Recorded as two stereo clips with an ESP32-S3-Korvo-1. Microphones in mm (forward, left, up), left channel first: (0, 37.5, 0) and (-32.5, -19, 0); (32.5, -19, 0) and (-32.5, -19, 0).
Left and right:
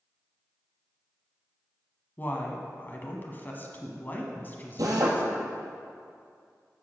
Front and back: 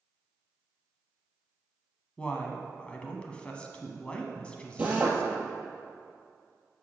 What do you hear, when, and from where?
2.2 s a woman speaking: 55° left, 1.2 m
4.8 s a drill: 115° right, 2 m